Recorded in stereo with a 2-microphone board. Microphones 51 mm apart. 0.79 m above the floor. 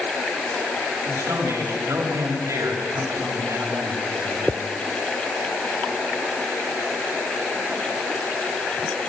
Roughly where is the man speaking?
Right.